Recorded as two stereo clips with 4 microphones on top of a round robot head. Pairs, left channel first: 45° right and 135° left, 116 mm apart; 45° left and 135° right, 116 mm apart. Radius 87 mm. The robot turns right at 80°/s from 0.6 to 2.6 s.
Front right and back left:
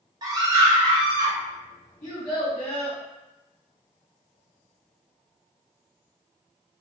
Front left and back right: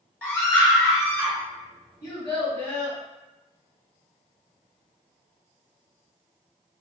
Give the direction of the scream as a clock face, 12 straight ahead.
8 o'clock.